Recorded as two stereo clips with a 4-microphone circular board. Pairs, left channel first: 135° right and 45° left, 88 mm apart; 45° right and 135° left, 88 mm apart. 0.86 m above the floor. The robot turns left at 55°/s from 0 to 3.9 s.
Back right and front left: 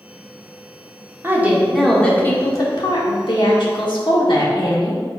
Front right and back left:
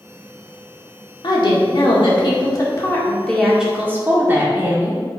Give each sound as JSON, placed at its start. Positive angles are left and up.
{"t": 1.2, "sound": "a woman speaking", "azimuth_deg": -15, "distance_m": 1.8}